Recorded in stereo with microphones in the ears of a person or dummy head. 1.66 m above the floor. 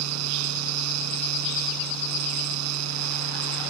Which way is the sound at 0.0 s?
85° right.